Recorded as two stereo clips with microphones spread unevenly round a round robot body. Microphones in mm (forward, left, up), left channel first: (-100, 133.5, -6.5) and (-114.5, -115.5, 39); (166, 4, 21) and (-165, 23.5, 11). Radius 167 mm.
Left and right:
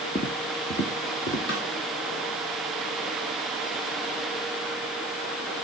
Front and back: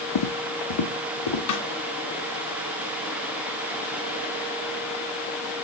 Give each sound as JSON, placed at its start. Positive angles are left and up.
{"t": 0.1, "sound": "footsteps", "azimuth_deg": 5, "distance_m": 1.0}
{"t": 1.5, "sound": "a snare drum", "azimuth_deg": 30, "distance_m": 2.0}